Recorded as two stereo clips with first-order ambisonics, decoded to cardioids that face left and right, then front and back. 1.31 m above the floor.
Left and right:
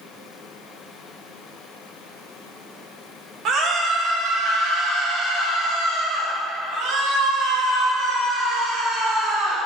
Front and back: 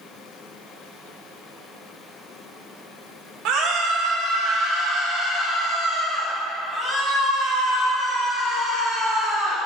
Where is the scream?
140° right, 1.8 m; by 9.6 s 95° right, 4 m.